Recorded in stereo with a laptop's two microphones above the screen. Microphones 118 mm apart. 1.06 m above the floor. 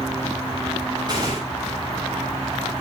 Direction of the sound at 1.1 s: 35° right (ahead or behind).